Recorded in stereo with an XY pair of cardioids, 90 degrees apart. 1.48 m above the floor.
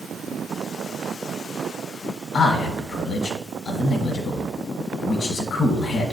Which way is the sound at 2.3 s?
60° left.